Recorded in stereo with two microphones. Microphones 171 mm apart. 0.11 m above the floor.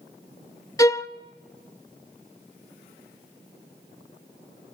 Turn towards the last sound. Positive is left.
turn(degrees=20)  # may be behind; listen again after turning